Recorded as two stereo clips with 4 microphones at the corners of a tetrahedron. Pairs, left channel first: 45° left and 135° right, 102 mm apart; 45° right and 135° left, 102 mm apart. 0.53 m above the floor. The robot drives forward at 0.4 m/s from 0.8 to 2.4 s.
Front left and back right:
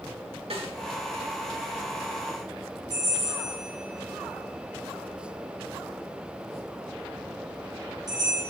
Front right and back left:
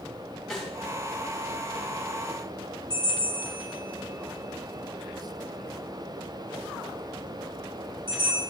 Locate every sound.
0.5 s a snare drum: 130° right, 3 m
2.9 s a bell: 175° left, 6 m